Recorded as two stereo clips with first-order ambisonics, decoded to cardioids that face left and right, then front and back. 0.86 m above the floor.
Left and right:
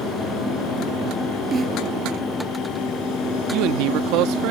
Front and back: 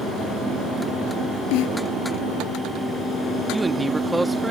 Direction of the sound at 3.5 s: 100° right.